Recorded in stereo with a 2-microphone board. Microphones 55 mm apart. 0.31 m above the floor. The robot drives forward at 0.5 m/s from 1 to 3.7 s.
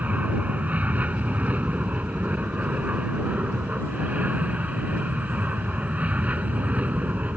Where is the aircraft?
25° right (ahead or behind).